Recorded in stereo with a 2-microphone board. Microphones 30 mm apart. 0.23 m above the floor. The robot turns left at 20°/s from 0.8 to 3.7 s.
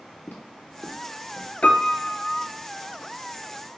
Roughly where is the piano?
Left.